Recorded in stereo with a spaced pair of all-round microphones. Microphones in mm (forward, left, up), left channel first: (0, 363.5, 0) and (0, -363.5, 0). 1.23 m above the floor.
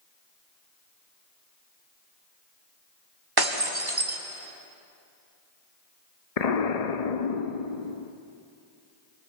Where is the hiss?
No hiss in this recording.